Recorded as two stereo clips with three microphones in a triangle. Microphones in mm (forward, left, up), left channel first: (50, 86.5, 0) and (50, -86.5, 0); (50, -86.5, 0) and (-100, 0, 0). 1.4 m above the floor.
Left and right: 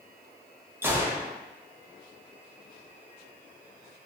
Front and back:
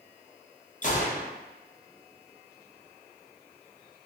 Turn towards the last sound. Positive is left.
turn(degrees=-15)